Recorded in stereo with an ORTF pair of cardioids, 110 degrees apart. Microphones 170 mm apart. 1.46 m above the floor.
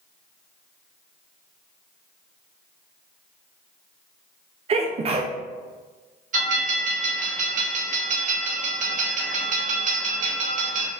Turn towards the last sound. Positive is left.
turn(degrees=-50)